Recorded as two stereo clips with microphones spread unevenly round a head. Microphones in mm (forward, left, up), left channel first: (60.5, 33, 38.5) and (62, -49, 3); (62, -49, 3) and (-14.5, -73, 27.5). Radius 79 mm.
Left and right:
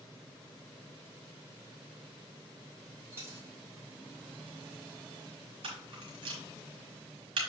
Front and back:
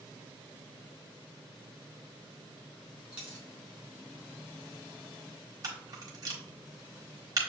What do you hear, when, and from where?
3.1 s a dropped coin: 175° left, 0.8 m
5.6 s a camera shutter: 120° right, 1.5 m